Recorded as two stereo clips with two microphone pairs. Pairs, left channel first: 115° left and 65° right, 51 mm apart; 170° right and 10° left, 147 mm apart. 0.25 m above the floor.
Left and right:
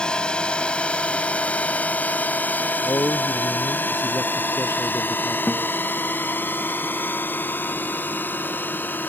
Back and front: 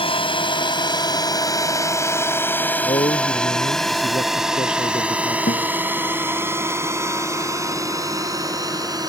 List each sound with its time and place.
0.0 s a drone: 175° left; by 9.1 s 70° left
2.8 s a man speaking: 140° left
5.5 s a guitar: 175° right